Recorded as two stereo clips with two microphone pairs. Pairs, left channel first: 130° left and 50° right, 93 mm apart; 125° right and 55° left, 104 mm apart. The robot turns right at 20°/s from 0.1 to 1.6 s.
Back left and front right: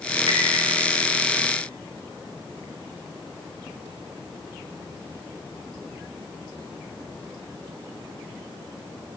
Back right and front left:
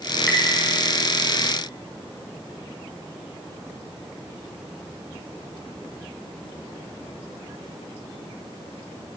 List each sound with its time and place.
0.3 s tapping: 40° right, 4 m; by 0.4 s 35° right, 4 m